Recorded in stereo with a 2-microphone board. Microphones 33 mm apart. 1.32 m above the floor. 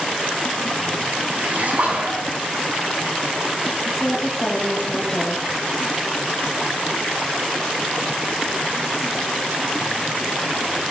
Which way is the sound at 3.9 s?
25° left (ahead or behind).